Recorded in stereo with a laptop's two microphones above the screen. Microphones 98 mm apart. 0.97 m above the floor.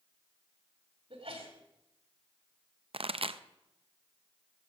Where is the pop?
70° right (ahead or behind), 0.5 m.